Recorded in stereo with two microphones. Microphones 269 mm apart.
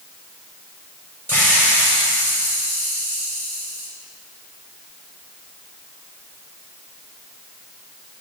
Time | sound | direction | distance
1.3 | a hiss | 5° left (ahead or behind) | 4.5 m